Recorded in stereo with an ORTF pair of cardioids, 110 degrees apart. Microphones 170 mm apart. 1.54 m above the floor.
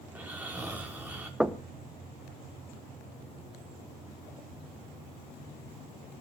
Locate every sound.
0.1 s snoring: 10° right, 5 m
1.4 s knocking: 5° right, 1.1 m